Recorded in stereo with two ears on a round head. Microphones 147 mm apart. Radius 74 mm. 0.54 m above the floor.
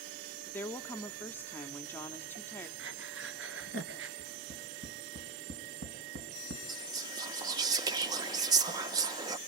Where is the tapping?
75° right (ahead or behind), 4.5 m.